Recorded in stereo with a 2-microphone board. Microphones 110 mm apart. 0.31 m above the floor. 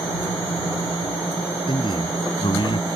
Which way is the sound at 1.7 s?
50° left (ahead or behind).